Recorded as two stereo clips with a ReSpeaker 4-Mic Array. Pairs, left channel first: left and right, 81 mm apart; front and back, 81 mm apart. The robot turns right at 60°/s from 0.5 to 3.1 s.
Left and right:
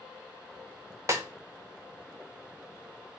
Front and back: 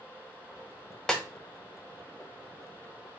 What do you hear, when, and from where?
1.1 s a snare drum: 80° right, 0.6 m; by 1.2 s 70° right, 0.6 m